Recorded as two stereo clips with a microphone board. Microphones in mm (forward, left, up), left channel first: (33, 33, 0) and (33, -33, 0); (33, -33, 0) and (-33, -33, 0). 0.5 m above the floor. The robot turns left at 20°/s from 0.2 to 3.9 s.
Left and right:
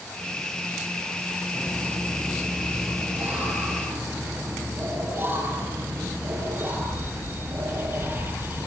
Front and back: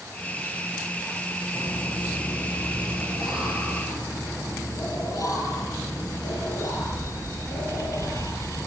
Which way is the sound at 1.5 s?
20° left.